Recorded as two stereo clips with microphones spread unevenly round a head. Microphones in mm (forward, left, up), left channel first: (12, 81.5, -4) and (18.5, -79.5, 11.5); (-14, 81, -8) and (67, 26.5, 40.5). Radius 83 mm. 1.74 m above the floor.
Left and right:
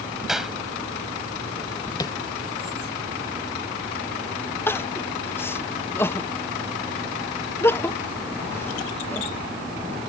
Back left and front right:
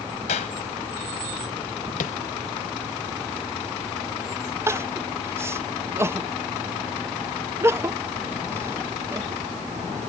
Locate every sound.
0.3 s a clap: 175° right
2.0 s tapping: 160° left
4.7 s crying: 15° left